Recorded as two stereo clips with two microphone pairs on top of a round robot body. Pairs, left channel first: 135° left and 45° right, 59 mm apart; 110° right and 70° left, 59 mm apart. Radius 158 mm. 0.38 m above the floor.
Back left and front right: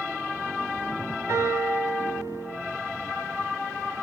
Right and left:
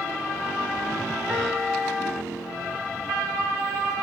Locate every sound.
1.3 s a piano: 5° right, 4.5 m